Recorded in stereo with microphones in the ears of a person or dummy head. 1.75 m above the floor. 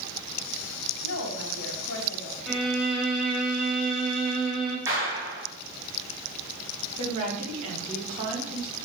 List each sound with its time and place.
1.0 s a woman speaking: 65° left (ahead or behind), 1.7 m
2.5 s a violin: 5° right (ahead or behind), 2.0 m
4.9 s a clap: 15° right (ahead or behind), 2.5 m
7.0 s a woman speaking: 40° right (ahead or behind), 2.5 m